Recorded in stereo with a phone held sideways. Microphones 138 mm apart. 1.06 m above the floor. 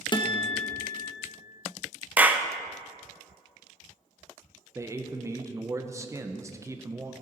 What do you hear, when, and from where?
0.1 s a guitar: 35° left (ahead or behind), 1.0 m
2.2 s a clap: 10° right (ahead or behind), 0.6 m
4.8 s a man speaking: 20° right (ahead or behind), 0.8 m